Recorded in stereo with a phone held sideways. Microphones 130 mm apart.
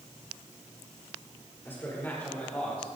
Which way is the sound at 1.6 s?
15° left (ahead or behind).